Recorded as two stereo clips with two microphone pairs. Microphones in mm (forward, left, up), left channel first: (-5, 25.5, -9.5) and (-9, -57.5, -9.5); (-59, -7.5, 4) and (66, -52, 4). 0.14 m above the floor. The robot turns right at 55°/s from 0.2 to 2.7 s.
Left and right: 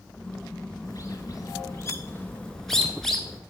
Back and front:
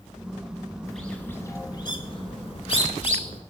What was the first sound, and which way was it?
A bird, 70° left.